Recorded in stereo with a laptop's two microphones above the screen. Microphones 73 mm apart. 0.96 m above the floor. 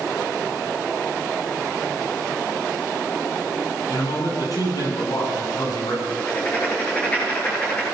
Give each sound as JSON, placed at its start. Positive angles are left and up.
{"t": 3.9, "sound": "a man speaking", "side_deg": 55, "distance_m": 9.5}
{"t": 6.1, "sound": "writing", "side_deg": 15, "distance_m": 9.0}